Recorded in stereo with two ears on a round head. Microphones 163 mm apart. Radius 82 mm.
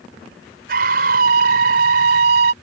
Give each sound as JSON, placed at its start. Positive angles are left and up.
{"t": 0.7, "sound": "a scream", "side_deg": -55}